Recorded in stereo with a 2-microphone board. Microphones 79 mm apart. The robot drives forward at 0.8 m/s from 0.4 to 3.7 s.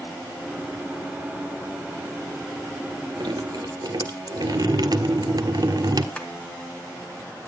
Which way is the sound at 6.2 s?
15° left (ahead or behind).